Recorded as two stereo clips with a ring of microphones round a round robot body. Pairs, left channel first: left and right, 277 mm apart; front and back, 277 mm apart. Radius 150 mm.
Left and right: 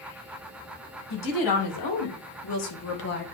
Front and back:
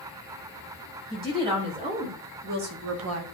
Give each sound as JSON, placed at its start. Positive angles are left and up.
{"t": 1.1, "sound": "a woman speaking", "azimuth_deg": 105, "distance_m": 3.0}